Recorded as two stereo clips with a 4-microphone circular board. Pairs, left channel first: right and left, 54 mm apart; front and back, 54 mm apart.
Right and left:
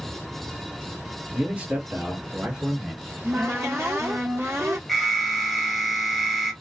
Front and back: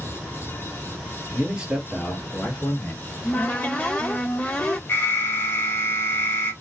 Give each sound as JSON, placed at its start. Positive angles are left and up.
{"t": 1.3, "sound": "a man speaking", "azimuth_deg": 140, "distance_m": 1.4}
{"t": 3.0, "sound": "a cupboard door", "azimuth_deg": 60, "distance_m": 1.0}
{"t": 4.9, "sound": "an alarm", "azimuth_deg": -5, "distance_m": 1.0}